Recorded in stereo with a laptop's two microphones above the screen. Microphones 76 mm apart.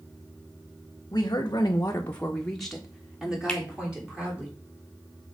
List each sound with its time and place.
1.1 s a woman speaking: 50° left (ahead or behind), 1.1 m; by 4.5 s 15° right (ahead or behind), 3.5 m
3.5 s a finger snap: 10° left (ahead or behind), 2.0 m